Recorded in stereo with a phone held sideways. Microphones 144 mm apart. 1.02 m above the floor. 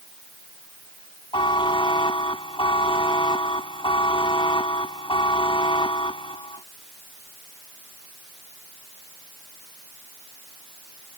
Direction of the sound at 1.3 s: 35° left (ahead or behind).